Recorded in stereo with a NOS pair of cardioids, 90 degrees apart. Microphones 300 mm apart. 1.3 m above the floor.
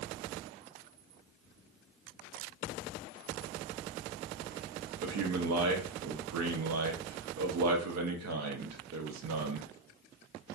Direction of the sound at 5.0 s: 65° right.